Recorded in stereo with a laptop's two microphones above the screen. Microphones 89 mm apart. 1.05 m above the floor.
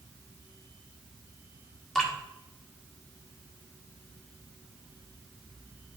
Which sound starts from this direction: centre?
Dripping, at 1.9 s.